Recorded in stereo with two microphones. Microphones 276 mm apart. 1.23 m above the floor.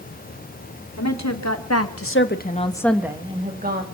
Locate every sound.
1.0 s a woman speaking: 75° left (ahead or behind), 3 m; by 3.9 s 35° right (ahead or behind), 2 m